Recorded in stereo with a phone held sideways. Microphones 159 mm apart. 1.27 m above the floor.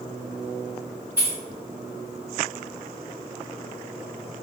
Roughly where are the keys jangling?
Centre.